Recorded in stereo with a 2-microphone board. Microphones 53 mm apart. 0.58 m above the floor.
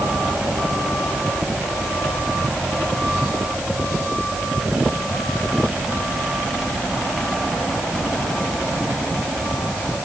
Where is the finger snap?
No finger snap in this recording.